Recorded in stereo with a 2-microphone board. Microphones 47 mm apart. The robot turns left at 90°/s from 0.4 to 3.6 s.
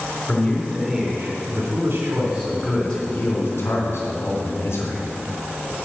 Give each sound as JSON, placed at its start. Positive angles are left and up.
{"t": 0.3, "sound": "a man speaking", "azimuth_deg": 40, "distance_m": 4.0}